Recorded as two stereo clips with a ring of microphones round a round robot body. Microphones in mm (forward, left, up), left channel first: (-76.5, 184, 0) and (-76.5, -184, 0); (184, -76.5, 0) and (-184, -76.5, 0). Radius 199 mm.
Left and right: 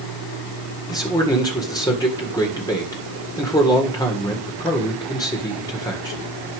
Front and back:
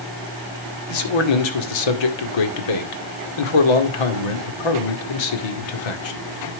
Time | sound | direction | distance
0.9 | a man speaking | 10° left | 1.8 m